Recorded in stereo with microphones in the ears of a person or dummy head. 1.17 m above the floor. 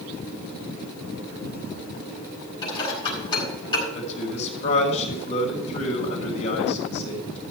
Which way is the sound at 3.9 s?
40° left (ahead or behind).